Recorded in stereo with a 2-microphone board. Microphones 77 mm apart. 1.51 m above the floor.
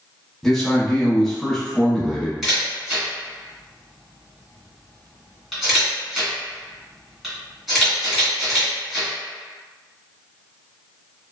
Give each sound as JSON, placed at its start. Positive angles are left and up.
{"t": 0.4, "sound": "a man speaking", "side_deg": 10, "distance_m": 0.7}
{"t": 2.4, "sound": "a camera shutter", "side_deg": 0, "distance_m": 1.5}